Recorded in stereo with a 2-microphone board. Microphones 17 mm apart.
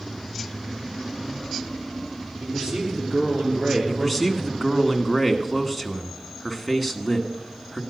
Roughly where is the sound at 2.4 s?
Right.